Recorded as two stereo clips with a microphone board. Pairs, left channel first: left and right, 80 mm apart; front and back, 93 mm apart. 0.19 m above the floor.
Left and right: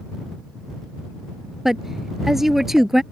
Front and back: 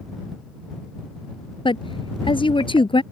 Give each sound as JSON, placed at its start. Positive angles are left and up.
{"t": 1.6, "sound": "a woman speaking", "azimuth_deg": -5}